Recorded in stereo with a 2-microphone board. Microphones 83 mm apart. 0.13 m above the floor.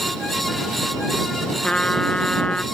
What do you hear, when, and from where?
1.6 s a trumpet: 15° left (ahead or behind)